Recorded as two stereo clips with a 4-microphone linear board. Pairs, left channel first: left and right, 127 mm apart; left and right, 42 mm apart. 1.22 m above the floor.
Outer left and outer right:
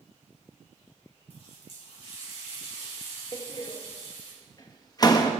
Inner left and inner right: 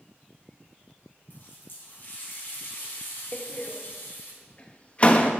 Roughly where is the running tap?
Left.